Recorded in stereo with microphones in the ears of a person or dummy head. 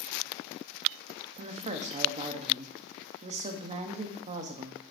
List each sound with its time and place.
1.4 s a woman speaking: 30° right (ahead or behind), 0.8 m